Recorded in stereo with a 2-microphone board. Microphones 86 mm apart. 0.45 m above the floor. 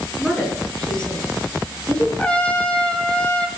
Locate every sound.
0.2 s a woman speaking: 10° left (ahead or behind), 7.5 m; by 2.1 s 15° left (ahead or behind), 8 m
2.2 s a trumpet: 15° left (ahead or behind), 2.5 m